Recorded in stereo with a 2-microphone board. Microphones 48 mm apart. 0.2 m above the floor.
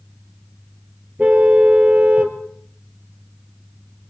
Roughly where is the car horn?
Right.